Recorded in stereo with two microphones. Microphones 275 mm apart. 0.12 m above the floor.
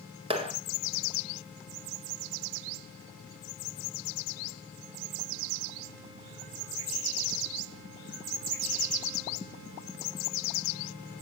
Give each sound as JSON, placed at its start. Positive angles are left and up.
{"t": 0.3, "sound": "a clap", "side_deg": -20, "distance_m": 1.7}